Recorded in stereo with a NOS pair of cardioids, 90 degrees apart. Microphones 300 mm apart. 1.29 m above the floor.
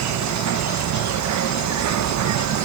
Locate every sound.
0.0 s an insect: 60° right